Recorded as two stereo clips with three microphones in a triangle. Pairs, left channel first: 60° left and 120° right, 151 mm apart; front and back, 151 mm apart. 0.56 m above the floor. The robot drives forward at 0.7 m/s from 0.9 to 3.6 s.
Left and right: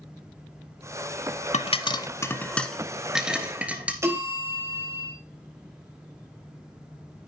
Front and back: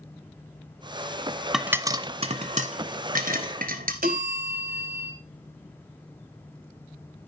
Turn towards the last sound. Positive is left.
turn(degrees=170)